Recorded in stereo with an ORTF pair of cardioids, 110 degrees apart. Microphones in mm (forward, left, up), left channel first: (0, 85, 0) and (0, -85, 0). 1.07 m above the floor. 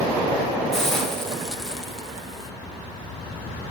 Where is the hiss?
5° left, 1.5 m.